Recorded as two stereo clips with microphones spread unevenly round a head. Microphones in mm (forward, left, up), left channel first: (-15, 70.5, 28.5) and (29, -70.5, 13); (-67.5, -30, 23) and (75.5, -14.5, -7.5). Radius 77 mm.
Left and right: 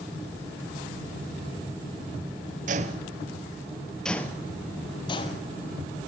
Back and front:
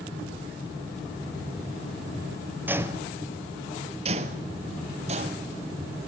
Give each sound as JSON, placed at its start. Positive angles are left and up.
{"t": 2.7, "sound": "footsteps", "azimuth_deg": -80, "distance_m": 1.3}